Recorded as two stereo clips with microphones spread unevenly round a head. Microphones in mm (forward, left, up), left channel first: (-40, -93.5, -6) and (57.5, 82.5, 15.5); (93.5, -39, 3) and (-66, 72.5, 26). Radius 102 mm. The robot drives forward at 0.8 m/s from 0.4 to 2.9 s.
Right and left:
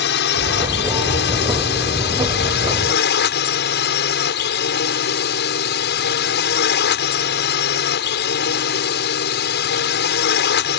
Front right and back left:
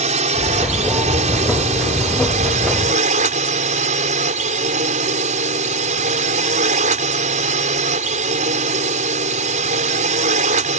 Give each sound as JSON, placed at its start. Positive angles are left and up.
{"t": 0.0, "sound": "a drone", "azimuth_deg": -155}